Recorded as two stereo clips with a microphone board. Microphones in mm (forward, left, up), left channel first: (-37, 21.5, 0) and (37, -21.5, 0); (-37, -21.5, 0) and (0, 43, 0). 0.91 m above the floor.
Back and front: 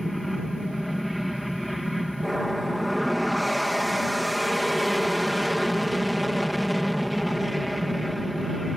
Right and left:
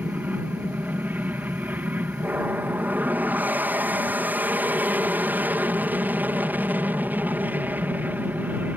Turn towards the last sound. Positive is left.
turn(degrees=60)